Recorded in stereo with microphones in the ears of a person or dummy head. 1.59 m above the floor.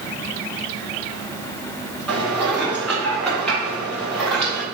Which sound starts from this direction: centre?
Dishes clattering, at 2.1 s.